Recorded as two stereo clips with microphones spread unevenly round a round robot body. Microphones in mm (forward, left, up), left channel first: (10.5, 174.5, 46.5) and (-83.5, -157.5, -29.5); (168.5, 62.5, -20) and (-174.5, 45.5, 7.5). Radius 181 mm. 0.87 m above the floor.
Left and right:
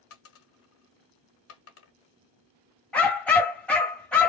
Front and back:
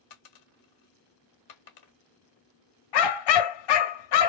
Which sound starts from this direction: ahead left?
A dropped coin, at 0.1 s.